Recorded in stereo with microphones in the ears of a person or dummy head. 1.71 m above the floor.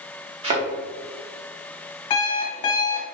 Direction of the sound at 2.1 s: 30° left (ahead or behind).